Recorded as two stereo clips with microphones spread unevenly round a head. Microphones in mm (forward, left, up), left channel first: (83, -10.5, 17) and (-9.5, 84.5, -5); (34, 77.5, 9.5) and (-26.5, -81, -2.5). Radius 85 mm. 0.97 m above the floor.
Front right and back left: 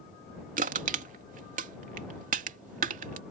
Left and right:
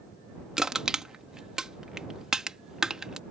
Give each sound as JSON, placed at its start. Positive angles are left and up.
{"t": 0.6, "sound": "crushing", "azimuth_deg": 165}